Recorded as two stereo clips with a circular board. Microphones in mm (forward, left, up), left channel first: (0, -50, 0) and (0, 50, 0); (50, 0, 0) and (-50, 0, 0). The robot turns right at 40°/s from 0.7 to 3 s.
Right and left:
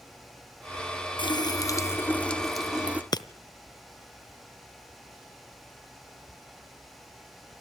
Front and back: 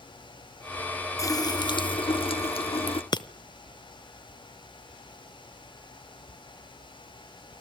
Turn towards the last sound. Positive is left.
turn(degrees=-40)